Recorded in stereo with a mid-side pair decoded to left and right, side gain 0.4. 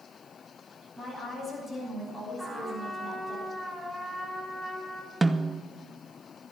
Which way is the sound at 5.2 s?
15° right.